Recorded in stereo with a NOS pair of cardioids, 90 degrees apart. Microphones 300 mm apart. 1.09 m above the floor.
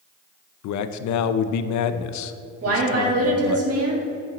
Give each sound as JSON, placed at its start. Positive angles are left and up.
{"t": 0.6, "sound": "a man speaking", "azimuth_deg": 70, "distance_m": 0.6}
{"t": 2.6, "sound": "a woman speaking", "azimuth_deg": -50, "distance_m": 2.0}